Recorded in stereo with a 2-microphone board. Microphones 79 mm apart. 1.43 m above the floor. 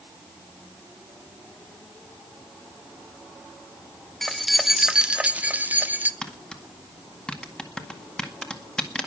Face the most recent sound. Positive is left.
turn(degrees=10)  # may be behind; listen again after turning